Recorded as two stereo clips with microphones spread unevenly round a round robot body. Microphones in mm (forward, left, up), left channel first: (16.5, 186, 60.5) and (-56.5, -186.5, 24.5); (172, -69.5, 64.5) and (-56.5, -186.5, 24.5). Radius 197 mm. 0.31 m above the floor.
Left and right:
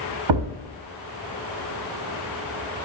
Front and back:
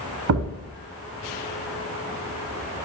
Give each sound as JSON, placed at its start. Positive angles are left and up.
{"t": 0.3, "sound": "a thud", "azimuth_deg": -125, "distance_m": 1.2}